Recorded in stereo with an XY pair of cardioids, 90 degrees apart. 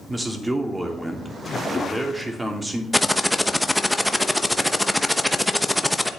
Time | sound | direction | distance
0.1 | a man speaking | 15° right | 3 m
2.9 | typing on a keyboard | 5° left | 1.0 m